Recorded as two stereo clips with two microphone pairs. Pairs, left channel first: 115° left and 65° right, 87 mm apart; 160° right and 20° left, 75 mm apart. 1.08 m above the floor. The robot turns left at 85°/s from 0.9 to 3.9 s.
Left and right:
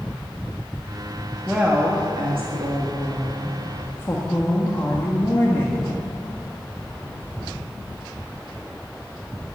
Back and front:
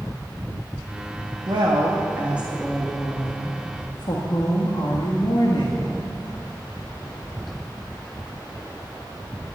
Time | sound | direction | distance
1.5 | a woman speaking | 25° left | 1.5 m